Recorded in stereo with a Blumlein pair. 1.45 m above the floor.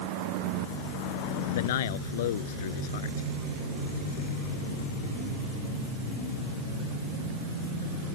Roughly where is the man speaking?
Ahead left.